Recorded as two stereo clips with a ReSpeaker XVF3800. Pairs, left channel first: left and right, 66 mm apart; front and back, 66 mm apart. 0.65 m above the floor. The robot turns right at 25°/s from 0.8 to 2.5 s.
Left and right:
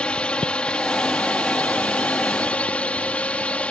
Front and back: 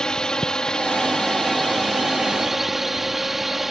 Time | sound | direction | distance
0.0 | a drone | 60° left | ?